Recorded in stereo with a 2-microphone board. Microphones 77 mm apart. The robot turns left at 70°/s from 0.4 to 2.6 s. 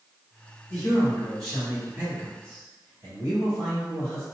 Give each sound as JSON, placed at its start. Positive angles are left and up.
{"t": 0.7, "sound": "a man speaking", "azimuth_deg": 40, "distance_m": 1.9}